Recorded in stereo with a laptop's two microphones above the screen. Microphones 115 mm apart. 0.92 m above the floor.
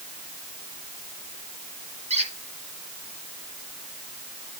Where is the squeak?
70° right (ahead or behind), 2.5 m.